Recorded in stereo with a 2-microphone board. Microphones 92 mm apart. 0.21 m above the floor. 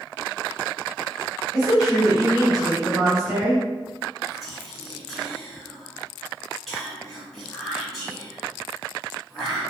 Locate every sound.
1.5 s a woman speaking: 5° right (ahead or behind), 1.4 m
4.3 s whispering: centre (ahead or behind), 1.1 m